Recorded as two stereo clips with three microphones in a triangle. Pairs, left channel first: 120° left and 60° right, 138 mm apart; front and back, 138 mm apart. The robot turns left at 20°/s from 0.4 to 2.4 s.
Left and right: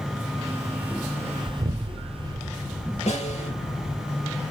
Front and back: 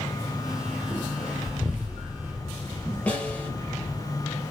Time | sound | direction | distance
1.5 | an explosion | 80° right | 0.7 m
3.1 | a snare drum | 80° left | 3 m